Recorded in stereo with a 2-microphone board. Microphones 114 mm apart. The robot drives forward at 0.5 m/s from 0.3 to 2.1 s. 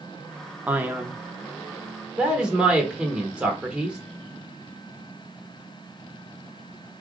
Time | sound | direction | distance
0.7 | a man speaking | 15° right (ahead or behind) | 0.6 m